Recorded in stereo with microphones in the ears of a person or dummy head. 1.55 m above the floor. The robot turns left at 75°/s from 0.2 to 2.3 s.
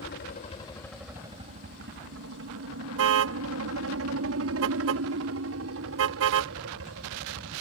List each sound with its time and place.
0.0 s a helicopter: 60° left; by 7.6 s 100° right
3.0 s a car horn: 70° right (ahead or behind)